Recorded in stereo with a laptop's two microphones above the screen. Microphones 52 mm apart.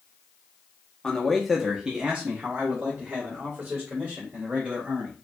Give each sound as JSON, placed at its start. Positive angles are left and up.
{"t": 1.0, "sound": "a man speaking", "side_deg": 15, "distance_m": 0.7}